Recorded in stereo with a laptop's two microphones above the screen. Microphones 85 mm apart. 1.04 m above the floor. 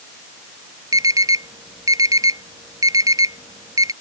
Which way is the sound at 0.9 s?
45° right (ahead or behind).